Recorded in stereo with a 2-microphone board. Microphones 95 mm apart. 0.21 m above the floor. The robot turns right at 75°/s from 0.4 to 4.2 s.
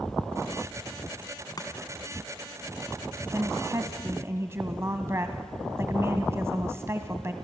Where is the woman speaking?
120° right, 1.2 m; by 7.3 s 55° right, 1.2 m.